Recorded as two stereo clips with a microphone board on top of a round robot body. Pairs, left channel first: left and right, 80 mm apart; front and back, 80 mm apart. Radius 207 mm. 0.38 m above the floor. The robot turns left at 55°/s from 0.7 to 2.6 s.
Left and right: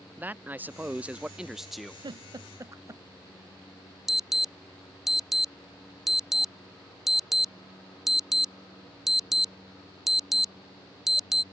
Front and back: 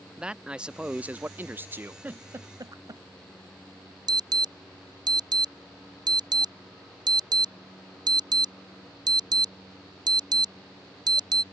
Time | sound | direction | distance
0.2 | a man speaking | 120° right | ?
2.0 | a giggle | 110° right | ?
4.1 | an alarm | 175° right | ?